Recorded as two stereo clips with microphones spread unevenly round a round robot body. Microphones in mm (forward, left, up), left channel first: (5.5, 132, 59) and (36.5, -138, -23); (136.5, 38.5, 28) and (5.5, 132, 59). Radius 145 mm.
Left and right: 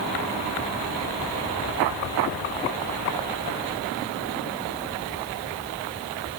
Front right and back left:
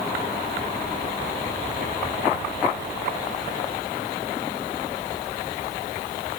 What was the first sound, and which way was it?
Only background noise.